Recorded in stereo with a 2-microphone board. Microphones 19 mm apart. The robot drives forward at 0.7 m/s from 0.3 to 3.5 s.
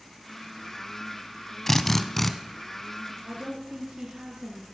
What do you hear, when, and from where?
1.7 s a drill: 15° left (ahead or behind), 1.0 m; by 2.3 s 10° left (ahead or behind), 1.4 m
3.2 s a woman speaking: 60° right (ahead or behind), 5.5 m